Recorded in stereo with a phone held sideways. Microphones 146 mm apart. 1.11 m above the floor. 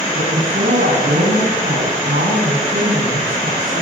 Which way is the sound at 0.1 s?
80° right.